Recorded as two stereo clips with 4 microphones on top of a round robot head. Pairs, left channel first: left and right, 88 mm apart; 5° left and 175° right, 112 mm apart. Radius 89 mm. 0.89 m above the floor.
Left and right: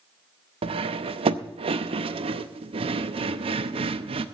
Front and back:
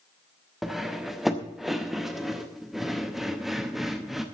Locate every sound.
0.6 s cutlery clinking: 90° right, 0.7 m